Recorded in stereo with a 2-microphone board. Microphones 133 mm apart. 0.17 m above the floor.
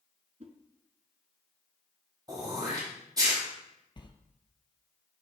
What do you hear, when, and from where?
0.4 s a whoosh: 55° right (ahead or behind), 0.7 m
2.3 s throat clearing: 30° right (ahead or behind), 3 m
4.0 s a sliding door: 40° left (ahead or behind), 0.8 m